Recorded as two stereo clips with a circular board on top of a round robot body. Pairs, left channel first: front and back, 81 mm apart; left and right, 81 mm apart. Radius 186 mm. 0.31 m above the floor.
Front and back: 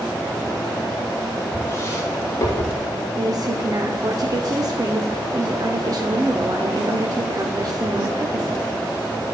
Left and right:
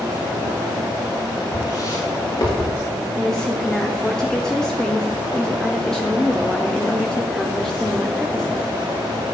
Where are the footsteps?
55° left, 6 m; by 2.8 s 50° left, 5.5 m.